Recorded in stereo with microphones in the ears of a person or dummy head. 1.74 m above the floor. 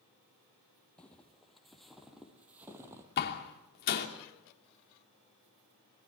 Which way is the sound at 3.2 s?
55° left (ahead or behind).